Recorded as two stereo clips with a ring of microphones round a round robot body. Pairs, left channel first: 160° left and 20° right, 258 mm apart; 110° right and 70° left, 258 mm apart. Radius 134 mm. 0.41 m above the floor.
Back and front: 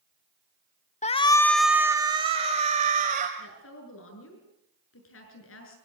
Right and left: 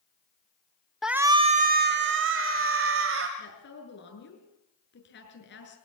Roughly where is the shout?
Behind left.